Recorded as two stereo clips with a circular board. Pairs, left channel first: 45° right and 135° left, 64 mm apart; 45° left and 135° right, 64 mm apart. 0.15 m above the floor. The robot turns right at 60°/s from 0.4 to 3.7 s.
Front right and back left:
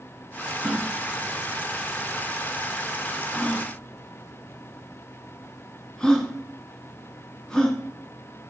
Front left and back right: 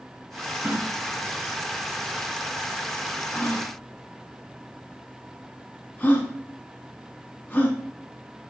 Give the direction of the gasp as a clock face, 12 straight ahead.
5 o'clock.